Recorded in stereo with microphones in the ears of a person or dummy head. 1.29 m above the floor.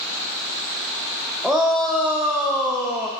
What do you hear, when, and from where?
1.4 s a shout: 5° right (ahead or behind), 0.6 m